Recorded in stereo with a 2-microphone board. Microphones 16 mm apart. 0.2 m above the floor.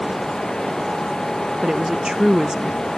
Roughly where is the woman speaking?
Right.